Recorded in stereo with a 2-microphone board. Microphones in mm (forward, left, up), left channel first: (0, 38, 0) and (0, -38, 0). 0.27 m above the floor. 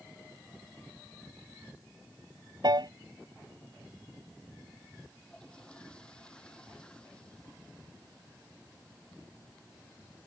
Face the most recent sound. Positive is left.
turn(degrees=10)  # may be behind; listen again after turning